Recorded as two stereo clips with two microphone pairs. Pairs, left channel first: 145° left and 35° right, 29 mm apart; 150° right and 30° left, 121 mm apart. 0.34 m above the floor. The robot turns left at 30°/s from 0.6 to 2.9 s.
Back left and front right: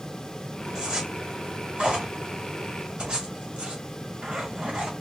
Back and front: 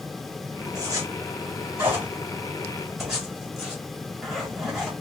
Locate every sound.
0.8 s a zipper: 10° left, 1.4 m; by 4.9 s 55° right, 1.4 m